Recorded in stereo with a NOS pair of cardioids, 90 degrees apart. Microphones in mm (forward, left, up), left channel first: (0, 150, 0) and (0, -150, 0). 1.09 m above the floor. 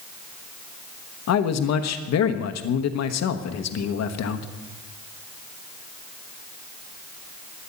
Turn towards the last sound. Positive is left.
turn(degrees=60)